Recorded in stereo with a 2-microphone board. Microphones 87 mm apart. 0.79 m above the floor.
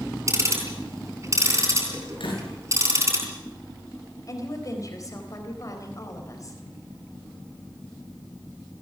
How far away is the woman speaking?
About 4 m.